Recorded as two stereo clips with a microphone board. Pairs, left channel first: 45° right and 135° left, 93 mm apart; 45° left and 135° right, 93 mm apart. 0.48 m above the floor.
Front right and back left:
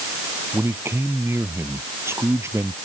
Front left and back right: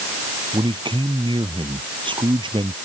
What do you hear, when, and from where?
0.5 s a man speaking: 160° right; by 2.8 s 165° right